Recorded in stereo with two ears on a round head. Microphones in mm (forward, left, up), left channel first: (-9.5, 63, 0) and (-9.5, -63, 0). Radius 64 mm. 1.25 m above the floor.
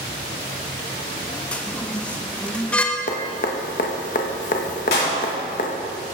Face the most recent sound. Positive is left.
turn(degrees=85)